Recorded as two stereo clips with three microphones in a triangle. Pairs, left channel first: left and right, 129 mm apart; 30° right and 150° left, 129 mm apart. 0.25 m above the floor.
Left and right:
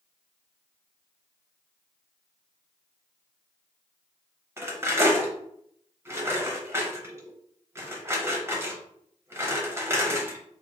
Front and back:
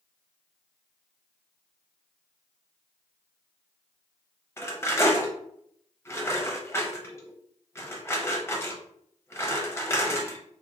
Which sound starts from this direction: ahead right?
Cutlery clinking, at 4.6 s.